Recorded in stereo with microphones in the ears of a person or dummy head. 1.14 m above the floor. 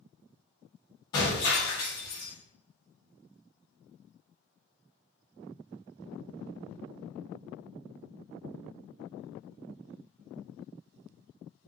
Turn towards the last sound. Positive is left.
turn(degrees=25)  # may be behind; listen again after turning